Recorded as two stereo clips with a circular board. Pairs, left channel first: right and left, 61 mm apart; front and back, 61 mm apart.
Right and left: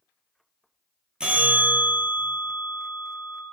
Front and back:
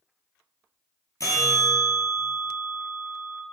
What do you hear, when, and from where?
1.2 s a bell: 15° left, 0.6 m